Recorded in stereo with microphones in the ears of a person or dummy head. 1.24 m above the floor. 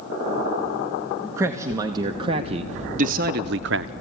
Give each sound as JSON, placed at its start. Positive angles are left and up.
{"t": 1.4, "sound": "a man speaking", "side_deg": -20, "distance_m": 1.4}